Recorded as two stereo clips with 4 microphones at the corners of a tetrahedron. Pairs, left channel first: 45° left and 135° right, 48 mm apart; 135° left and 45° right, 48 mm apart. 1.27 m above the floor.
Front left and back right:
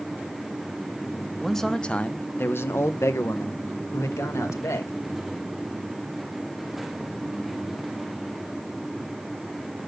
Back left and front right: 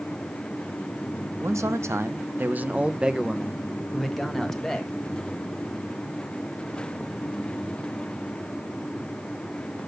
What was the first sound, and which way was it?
A man speaking, 45° right.